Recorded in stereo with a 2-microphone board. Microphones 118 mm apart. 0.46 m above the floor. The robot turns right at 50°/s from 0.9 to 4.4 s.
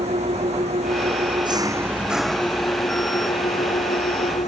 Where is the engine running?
65° right; by 4.5 s 110° left.